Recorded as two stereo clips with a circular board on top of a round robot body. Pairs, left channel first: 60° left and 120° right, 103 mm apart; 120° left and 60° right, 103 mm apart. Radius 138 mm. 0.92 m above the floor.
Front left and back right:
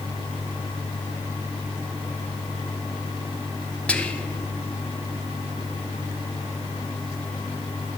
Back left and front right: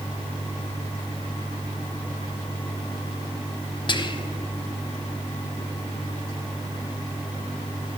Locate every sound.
3.9 s whispering: 135° left, 1.0 m